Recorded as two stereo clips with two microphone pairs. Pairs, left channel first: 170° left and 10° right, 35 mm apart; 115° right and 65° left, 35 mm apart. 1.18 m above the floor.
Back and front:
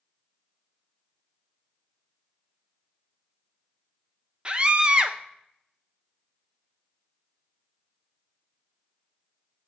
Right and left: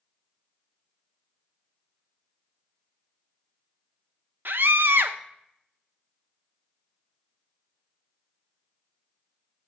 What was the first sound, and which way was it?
A scream, 50° left.